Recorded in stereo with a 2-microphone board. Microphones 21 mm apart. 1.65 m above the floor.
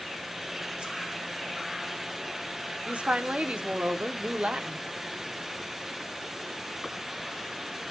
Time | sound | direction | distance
0.8 | a whoosh | 50° right (ahead or behind) | 2 m
2.9 | a woman speaking | 75° right (ahead or behind) | 1.1 m